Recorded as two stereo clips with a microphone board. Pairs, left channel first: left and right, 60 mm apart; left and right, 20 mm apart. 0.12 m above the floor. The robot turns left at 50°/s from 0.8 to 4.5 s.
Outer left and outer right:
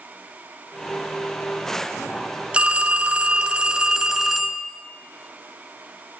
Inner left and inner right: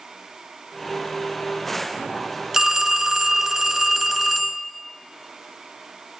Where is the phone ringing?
20° right (ahead or behind), 0.7 m; by 4.7 s 5° right (ahead or behind), 0.7 m.